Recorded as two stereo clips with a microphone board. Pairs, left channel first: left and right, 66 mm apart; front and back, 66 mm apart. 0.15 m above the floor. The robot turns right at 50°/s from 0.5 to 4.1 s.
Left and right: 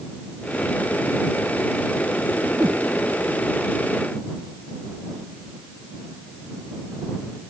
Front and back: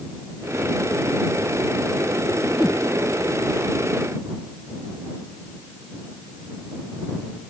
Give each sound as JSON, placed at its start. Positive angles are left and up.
{"t": 2.5, "sound": "a whoosh", "azimuth_deg": -95}